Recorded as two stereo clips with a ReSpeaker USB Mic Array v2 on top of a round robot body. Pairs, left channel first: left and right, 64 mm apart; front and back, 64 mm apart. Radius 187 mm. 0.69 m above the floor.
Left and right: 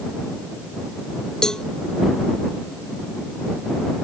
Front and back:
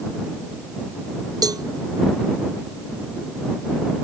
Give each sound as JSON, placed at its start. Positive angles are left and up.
{"t": 1.4, "sound": "a cowbell", "azimuth_deg": 170}